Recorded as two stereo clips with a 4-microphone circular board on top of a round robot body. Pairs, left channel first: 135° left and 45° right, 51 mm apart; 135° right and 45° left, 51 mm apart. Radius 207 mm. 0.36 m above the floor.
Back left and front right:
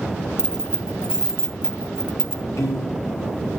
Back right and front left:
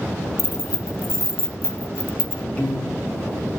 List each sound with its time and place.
0.4 s keys jangling: 120° right, 1.1 m
2.6 s a piano: 155° left, 6 m